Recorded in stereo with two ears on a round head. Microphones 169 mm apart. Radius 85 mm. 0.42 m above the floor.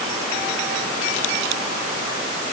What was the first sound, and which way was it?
Only background noise.